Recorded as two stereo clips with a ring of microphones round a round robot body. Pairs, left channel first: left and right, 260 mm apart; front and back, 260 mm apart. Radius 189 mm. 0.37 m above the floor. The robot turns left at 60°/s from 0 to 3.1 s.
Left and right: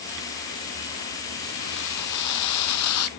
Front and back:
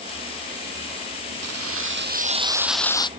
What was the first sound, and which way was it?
Keys jangling, 170° left.